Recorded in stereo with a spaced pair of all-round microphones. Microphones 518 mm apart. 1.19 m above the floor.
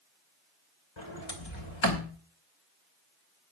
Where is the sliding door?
60° left (ahead or behind), 2.5 m.